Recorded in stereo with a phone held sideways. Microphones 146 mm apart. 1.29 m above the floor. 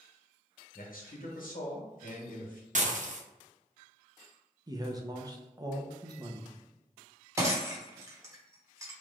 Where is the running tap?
No running tap in this recording.